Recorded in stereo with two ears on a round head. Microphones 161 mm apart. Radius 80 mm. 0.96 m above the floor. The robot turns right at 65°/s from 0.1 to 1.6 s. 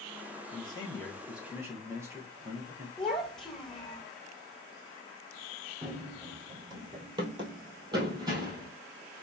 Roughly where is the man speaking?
Behind left.